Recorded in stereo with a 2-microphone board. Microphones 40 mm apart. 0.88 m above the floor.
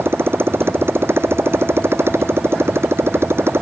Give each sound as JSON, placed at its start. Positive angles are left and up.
{"t": 0.0, "sound": "a motorcycle", "side_deg": -75}